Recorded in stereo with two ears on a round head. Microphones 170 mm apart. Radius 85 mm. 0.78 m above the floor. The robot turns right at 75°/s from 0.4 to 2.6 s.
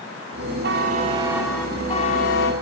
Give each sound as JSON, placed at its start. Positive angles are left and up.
{"t": 0.6, "sound": "a buzzer", "azimuth_deg": -60, "distance_m": 8.0}